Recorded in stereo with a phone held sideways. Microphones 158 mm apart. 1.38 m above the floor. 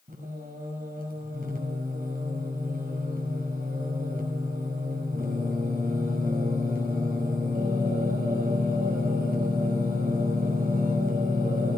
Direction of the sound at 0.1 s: 65° right (ahead or behind).